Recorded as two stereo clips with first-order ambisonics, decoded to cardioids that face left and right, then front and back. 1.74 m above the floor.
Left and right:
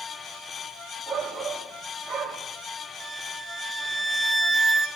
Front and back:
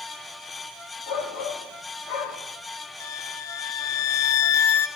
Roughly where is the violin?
Ahead.